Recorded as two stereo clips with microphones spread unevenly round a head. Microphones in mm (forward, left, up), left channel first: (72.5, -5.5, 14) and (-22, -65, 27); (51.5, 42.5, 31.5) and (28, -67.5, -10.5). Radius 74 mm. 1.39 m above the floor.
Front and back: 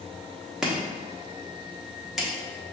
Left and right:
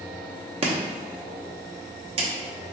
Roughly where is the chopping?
Ahead right.